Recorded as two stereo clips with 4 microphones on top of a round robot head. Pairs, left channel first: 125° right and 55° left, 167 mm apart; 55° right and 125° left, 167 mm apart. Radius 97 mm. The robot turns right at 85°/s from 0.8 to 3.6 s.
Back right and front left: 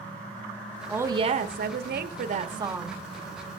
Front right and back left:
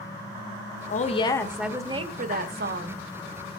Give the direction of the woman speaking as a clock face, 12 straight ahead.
1 o'clock.